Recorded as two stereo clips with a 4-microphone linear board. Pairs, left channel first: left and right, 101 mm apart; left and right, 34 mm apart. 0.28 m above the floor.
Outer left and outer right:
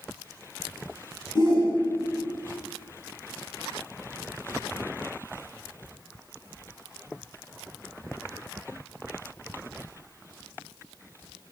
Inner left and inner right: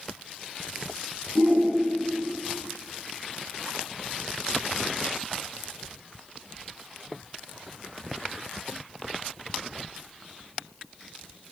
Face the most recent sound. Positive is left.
turn(degrees=45)  # may be behind; listen again after turning